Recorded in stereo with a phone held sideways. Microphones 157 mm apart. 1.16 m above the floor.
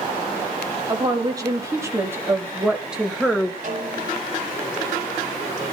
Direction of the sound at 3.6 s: 55° right (ahead or behind).